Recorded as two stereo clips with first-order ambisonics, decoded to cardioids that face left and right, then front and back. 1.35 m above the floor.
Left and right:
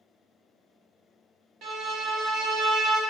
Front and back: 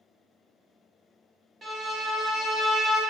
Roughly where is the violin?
Right.